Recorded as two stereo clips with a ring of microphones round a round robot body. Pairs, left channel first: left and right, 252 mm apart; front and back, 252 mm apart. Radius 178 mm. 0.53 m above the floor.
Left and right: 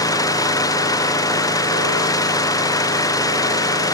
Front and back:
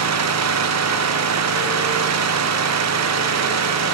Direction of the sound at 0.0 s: 165° left.